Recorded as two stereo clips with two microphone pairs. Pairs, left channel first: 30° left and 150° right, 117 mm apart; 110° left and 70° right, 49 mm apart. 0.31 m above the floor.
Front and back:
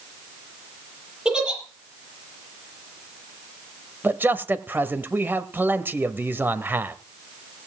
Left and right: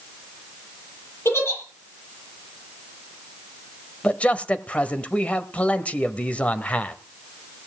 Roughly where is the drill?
No drill in this recording.